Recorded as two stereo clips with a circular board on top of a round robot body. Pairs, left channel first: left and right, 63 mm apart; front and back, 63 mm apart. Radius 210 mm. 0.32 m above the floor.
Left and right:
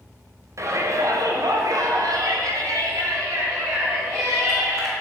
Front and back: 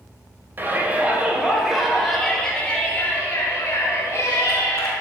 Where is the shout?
125° right, 2 m; by 4.9 s 50° right, 3.5 m.